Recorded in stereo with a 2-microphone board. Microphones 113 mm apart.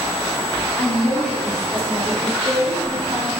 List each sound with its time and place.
0.8 s a woman speaking: 20° left (ahead or behind), 1.0 m; by 3.3 s 35° right (ahead or behind), 1.6 m